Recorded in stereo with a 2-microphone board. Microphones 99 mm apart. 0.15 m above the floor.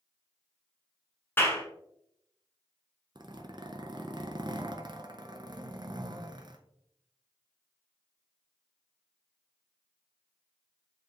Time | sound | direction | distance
1.4 | a clap | 20° left (ahead or behind) | 1.2 m
3.1 | a zipper | 50° right (ahead or behind) | 0.6 m